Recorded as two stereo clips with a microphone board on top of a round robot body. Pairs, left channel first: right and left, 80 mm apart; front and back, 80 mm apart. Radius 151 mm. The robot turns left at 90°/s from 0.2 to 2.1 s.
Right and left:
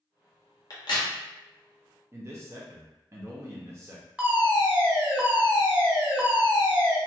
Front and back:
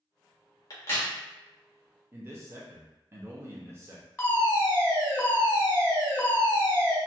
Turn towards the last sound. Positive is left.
turn(degrees=40)